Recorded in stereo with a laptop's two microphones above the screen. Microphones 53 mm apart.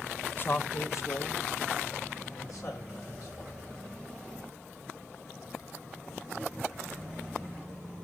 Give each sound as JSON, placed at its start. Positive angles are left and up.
{"t": 0.4, "sound": "a man speaking", "side_deg": 35, "distance_m": 0.7}